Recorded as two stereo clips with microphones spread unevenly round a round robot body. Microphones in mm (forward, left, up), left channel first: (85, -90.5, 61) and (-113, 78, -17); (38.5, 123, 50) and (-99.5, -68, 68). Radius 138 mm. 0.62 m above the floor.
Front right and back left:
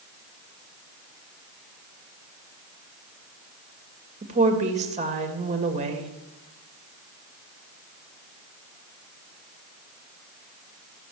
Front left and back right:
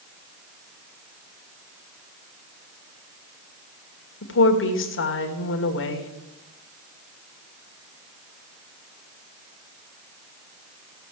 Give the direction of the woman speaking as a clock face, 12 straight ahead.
9 o'clock.